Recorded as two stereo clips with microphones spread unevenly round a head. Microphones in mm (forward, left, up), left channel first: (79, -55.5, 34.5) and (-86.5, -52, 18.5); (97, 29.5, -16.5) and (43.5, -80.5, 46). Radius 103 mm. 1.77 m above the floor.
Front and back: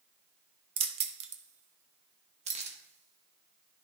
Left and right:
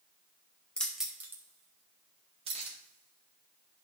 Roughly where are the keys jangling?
Behind.